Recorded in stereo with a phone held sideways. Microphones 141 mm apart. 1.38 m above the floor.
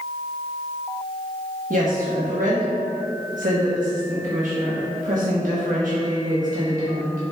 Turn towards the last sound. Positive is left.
turn(degrees=-70)  # may be behind; listen again after turning